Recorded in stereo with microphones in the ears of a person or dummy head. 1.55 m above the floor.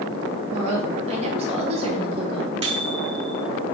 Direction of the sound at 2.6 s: 30° right (ahead or behind).